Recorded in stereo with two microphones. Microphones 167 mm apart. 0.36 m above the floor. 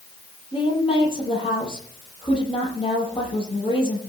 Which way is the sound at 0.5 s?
30° left (ahead or behind).